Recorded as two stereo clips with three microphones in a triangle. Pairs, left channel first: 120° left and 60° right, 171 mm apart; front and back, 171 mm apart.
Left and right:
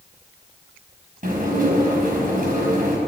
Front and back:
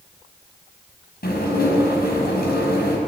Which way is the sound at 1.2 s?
25° right.